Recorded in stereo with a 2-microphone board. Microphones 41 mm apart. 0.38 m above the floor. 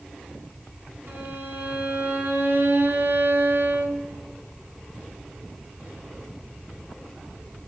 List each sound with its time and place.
1.1 s a violin: 60° right (ahead or behind), 3.5 m